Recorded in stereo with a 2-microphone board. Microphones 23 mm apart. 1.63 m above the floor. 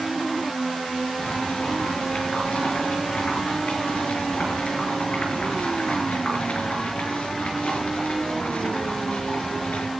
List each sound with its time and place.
1.2 s boiling: 60° left (ahead or behind), 6 m